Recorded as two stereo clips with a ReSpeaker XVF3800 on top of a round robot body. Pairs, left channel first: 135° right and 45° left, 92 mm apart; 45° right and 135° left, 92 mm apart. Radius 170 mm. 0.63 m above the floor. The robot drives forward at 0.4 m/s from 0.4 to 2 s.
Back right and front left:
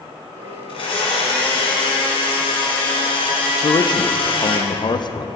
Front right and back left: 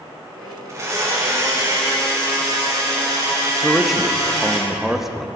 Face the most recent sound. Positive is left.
turn(degrees=-140)